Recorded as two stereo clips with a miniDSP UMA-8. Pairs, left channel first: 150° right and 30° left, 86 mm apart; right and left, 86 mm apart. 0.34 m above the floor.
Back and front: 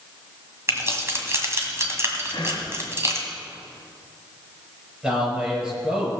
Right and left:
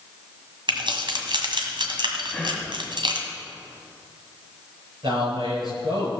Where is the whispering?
175° right, 3 m.